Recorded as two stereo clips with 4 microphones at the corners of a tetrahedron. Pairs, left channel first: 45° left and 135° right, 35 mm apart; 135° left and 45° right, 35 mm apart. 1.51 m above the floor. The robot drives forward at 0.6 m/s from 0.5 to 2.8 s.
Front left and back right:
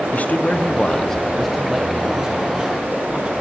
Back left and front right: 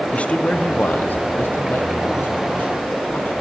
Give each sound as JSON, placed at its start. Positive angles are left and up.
{"t": 0.1, "sound": "a man speaking", "azimuth_deg": 85, "distance_m": 0.6}